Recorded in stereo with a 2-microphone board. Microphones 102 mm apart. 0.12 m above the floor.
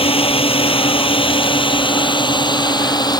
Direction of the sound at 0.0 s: 65° left (ahead or behind).